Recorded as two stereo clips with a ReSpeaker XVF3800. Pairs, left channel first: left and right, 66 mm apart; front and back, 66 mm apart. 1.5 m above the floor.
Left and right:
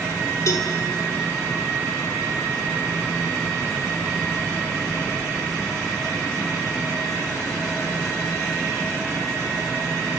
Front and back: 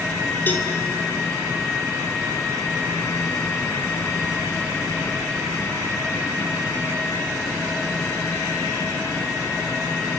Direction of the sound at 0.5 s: 55° left.